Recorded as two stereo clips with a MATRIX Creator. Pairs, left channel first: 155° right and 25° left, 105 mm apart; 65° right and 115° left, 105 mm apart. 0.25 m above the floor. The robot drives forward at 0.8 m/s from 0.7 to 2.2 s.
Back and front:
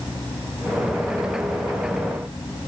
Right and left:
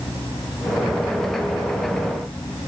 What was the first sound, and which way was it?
Only background noise.